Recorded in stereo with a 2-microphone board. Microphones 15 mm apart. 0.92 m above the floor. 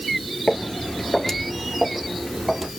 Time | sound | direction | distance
0.5 | footsteps | 25° left (ahead or behind) | 1.0 m